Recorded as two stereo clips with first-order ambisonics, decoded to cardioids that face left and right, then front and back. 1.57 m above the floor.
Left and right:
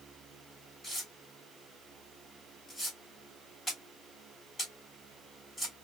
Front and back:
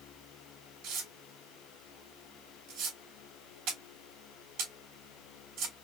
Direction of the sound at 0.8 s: 165° left.